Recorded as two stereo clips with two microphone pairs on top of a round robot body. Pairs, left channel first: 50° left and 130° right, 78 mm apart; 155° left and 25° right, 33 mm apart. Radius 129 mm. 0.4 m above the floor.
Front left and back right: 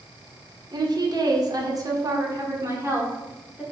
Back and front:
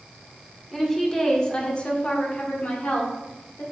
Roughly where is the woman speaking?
Behind right.